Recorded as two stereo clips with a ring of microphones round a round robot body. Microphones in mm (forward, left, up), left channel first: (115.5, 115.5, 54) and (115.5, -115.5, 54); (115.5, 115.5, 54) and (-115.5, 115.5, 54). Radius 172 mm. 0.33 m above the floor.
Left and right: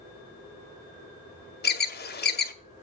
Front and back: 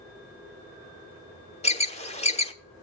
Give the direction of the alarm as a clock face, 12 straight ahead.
10 o'clock.